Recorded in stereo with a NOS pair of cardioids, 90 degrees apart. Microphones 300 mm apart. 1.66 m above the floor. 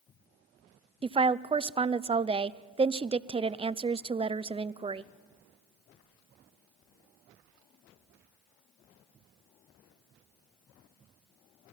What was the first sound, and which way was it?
A woman speaking, 20° right.